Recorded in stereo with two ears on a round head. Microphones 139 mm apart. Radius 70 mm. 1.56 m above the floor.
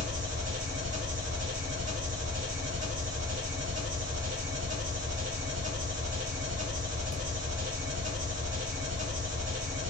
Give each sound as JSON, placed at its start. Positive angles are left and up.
{"t": 0.0, "sound": "an engine running", "side_deg": -50, "distance_m": 0.9}